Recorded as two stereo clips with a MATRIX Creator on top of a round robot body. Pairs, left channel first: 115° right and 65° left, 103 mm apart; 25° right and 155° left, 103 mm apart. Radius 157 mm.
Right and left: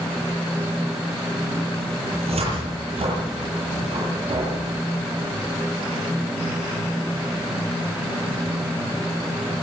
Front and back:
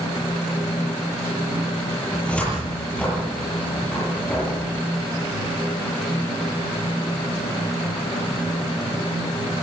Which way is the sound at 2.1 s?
55° left.